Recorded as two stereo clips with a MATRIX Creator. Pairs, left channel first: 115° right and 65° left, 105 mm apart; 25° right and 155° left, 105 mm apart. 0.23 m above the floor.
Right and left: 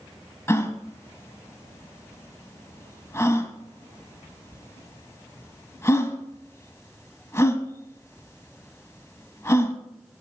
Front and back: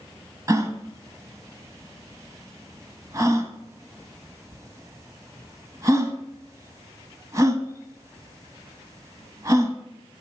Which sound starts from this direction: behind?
A gasp, at 0.5 s.